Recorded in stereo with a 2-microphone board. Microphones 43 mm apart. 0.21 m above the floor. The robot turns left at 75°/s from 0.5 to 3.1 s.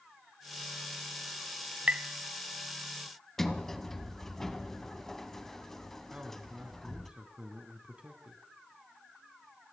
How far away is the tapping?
About 0.5 m.